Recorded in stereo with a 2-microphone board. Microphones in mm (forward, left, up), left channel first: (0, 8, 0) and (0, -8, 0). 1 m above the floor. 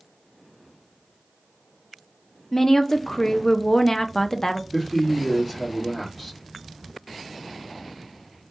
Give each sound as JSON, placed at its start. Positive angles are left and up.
{"t": 2.5, "sound": "a woman speaking", "side_deg": 30, "distance_m": 0.5}
{"t": 4.7, "sound": "a man speaking", "side_deg": 5, "distance_m": 1.5}